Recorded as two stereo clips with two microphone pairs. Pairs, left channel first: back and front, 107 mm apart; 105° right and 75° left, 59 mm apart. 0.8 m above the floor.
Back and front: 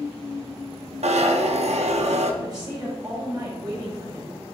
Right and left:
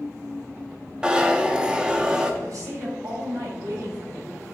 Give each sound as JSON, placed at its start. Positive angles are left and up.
{"t": 1.0, "sound": "a zipper", "azimuth_deg": -5, "distance_m": 0.7}
{"t": 2.4, "sound": "a woman speaking", "azimuth_deg": 55, "distance_m": 2.5}